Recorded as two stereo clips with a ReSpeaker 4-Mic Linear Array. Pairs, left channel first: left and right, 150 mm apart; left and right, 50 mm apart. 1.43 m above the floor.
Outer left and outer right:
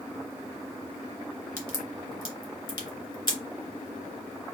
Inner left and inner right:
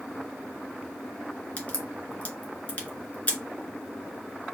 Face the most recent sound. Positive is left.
turn(degrees=35)  # may be behind; listen again after turning